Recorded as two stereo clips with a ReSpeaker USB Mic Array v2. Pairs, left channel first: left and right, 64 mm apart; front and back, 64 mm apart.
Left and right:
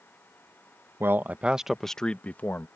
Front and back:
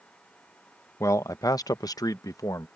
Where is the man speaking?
40° right; by 2.7 s 35° left.